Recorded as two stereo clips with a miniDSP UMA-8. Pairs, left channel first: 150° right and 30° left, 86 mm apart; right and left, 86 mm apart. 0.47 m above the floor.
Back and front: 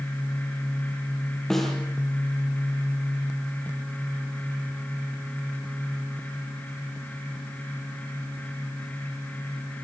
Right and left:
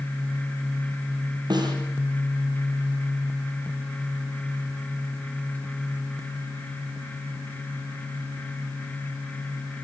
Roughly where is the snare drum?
Behind left.